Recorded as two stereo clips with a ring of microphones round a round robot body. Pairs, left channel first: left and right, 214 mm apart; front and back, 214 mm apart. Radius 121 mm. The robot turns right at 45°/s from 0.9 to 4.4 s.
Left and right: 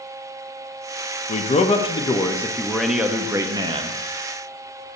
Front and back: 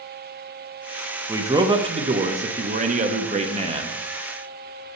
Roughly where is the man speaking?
Left.